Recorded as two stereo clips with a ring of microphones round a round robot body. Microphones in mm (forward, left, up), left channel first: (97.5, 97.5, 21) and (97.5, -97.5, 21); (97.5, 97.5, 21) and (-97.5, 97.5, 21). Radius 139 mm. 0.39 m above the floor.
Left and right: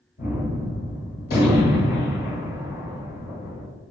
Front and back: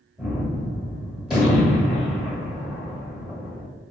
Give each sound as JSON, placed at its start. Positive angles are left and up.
{"t": 0.2, "sound": "a gunshot", "azimuth_deg": 95, "distance_m": 1.4}